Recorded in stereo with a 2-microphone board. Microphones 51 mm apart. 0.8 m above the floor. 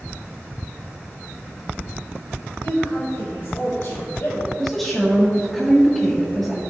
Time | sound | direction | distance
2.6 | a woman speaking | 55° left (ahead or behind) | 2.5 m
4.6 | a woman speaking | 10° left (ahead or behind) | 1.6 m